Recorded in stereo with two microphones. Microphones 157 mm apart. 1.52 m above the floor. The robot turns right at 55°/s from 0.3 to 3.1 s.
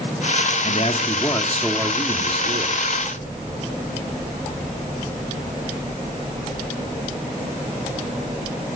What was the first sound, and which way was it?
A man speaking, 120° left.